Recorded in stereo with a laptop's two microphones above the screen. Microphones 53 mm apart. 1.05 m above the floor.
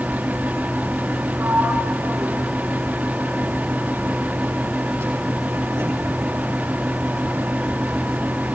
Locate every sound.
0.0 s a fan: 30° right (ahead or behind), 1.3 m
1.4 s a sliding door: 70° right (ahead or behind), 7 m